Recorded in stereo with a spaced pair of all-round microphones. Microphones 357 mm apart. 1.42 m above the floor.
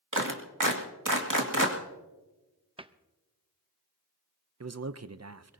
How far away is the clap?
About 2 m.